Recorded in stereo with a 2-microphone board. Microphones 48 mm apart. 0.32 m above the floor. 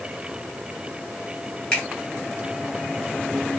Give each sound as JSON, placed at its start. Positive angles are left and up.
{"t": 1.7, "sound": "a finger snap", "side_deg": 15, "distance_m": 1.8}